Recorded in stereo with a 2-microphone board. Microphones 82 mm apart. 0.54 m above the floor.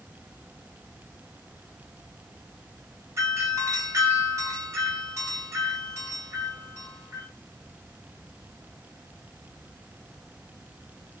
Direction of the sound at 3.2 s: 40° right (ahead or behind).